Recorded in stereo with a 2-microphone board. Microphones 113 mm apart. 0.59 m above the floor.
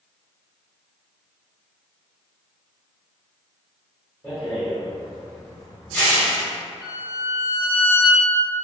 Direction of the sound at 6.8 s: 15° right (ahead or behind).